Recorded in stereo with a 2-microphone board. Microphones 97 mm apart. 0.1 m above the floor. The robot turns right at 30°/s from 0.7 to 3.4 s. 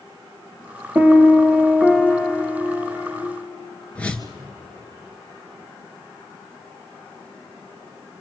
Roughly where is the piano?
Ahead right.